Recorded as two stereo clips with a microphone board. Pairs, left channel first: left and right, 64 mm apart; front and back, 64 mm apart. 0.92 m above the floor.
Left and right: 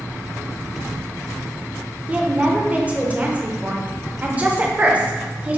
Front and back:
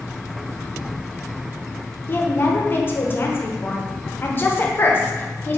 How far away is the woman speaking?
About 0.6 m.